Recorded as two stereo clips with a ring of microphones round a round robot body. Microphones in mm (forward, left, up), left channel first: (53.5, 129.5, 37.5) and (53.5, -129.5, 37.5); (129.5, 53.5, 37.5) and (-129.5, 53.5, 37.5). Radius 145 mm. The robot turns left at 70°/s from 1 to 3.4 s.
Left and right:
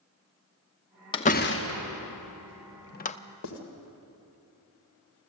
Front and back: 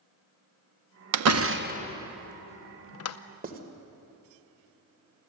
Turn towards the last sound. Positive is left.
turn(degrees=125)